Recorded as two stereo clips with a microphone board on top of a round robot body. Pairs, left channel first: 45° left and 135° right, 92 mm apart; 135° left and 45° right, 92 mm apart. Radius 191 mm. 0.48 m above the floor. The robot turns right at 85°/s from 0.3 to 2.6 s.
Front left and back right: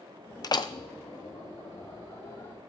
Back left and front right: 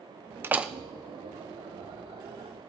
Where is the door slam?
10° left, 0.7 m; by 0.7 s 35° left, 0.7 m.